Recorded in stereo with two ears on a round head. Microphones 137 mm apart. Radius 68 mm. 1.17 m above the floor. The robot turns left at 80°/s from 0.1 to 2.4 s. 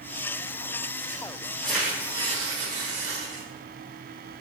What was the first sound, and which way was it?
Tearing paper, 10° left.